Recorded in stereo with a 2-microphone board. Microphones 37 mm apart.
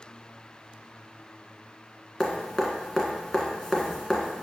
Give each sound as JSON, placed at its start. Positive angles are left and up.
{"t": 2.2, "sound": "dripping", "side_deg": 10, "distance_m": 1.4}